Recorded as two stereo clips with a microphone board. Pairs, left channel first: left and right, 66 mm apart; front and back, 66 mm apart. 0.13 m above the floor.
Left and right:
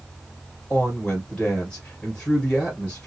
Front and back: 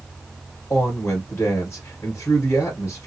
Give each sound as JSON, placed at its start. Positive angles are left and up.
{"t": 0.7, "sound": "a woman speaking", "azimuth_deg": 20, "distance_m": 1.9}